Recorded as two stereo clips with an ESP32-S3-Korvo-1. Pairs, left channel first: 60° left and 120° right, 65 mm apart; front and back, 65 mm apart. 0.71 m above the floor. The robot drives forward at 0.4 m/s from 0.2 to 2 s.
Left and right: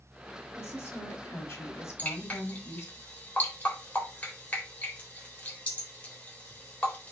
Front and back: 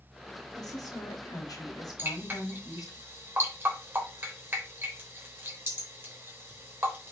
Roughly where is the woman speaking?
Ahead.